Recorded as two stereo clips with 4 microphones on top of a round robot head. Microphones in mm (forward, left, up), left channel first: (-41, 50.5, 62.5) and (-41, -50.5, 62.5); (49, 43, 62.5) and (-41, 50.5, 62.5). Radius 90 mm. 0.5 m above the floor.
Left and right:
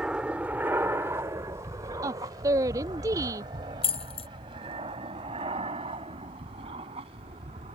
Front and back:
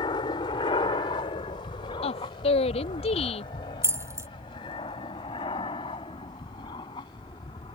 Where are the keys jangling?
115° left.